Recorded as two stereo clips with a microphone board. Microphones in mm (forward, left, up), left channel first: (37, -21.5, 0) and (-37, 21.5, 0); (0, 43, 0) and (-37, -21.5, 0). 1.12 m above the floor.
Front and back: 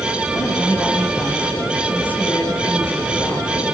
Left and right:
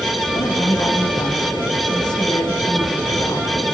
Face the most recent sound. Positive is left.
turn(degrees=40)